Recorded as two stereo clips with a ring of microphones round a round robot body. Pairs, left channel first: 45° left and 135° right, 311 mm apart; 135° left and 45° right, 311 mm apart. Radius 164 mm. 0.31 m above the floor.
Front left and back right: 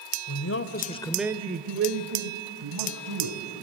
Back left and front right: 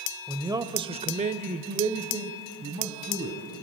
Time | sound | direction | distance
0.3 | a man speaking | 35° left | 1.6 m